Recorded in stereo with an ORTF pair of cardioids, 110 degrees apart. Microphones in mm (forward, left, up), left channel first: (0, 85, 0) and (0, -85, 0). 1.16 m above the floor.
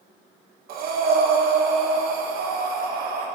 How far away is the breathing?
About 1.3 m.